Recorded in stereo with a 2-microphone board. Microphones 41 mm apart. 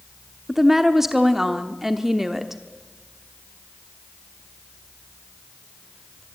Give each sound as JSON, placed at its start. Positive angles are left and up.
{"t": 0.5, "sound": "a woman speaking", "side_deg": -10, "distance_m": 1.0}